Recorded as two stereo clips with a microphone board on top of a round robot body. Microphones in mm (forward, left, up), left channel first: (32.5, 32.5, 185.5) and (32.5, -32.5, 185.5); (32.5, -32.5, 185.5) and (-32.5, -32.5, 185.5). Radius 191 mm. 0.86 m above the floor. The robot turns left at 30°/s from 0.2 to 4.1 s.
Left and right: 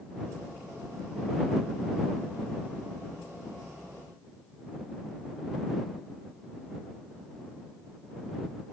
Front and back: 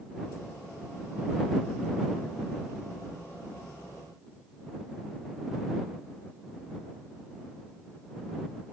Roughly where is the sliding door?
No sliding door in this recording.